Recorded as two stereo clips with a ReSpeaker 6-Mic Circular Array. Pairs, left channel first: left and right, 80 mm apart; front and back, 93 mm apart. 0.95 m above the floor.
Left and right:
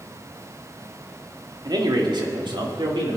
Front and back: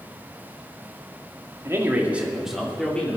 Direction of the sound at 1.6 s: 120° right.